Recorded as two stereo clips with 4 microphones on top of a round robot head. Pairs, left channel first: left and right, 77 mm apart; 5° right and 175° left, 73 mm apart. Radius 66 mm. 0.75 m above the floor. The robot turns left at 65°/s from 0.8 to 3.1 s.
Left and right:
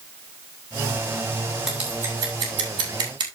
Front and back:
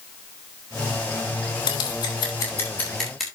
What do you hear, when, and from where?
1.7 s scissors: 5° right, 3 m; by 3.3 s 100° right, 3 m